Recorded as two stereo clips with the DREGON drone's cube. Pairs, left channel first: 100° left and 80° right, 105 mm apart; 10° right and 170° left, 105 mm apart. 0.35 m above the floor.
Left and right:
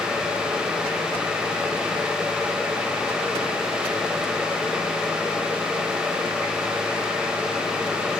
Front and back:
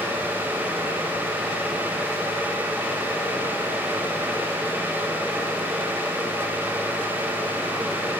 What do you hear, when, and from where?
Only background noise.